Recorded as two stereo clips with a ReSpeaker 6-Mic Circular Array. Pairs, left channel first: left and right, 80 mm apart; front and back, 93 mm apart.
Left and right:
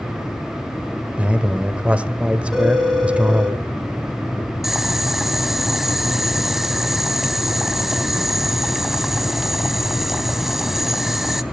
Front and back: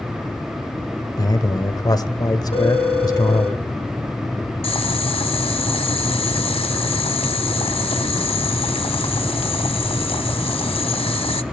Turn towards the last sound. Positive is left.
turn(degrees=-5)